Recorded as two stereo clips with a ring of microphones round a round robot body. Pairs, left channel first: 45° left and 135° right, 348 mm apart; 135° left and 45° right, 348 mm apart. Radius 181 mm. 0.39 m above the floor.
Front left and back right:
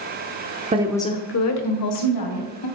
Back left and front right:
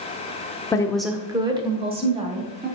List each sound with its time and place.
0.7 s a woman speaking: 165° right, 0.8 m; by 2.7 s 25° left, 2.5 m